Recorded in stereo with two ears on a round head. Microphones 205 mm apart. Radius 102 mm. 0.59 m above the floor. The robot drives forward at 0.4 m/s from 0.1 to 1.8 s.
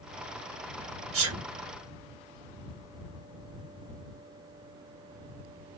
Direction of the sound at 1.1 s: 65° right (ahead or behind).